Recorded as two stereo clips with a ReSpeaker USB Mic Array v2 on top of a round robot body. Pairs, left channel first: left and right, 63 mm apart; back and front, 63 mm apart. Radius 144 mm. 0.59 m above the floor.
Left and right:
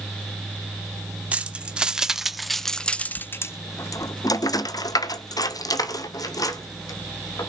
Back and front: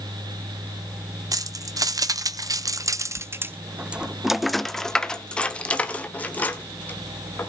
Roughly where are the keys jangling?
Ahead.